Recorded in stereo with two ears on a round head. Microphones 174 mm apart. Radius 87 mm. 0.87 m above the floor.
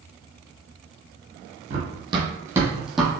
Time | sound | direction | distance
1.7 | running footsteps | 35° right (ahead or behind) | 1.2 m